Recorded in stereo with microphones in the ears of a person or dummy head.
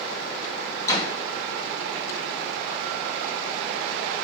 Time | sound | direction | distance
0.9 | a door slam | 20° left (ahead or behind) | 2.5 m